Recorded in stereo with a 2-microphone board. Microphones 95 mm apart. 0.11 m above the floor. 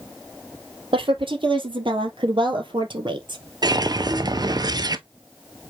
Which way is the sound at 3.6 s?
45° right (ahead or behind).